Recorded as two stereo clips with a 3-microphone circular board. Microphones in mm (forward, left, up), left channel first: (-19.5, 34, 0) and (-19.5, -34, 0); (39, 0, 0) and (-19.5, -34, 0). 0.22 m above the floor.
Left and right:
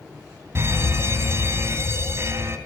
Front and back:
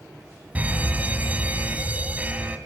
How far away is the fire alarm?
About 2.5 m.